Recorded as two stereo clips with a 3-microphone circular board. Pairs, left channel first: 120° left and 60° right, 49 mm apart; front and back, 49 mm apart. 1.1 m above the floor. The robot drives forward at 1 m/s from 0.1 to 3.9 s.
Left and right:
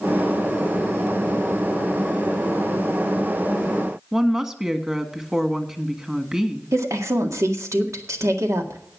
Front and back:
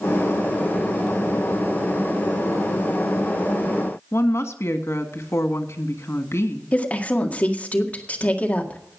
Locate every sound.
4.1 s a woman speaking: 15° left, 1.6 m
6.7 s a woman speaking: 60° right, 1.9 m